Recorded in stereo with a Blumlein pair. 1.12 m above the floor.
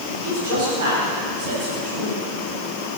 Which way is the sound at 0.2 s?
60° right.